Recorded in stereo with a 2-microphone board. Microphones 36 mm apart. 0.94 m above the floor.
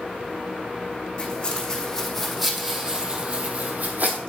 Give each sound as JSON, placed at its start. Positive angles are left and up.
{"t": 1.2, "sound": "footsteps", "side_deg": 25, "distance_m": 3.5}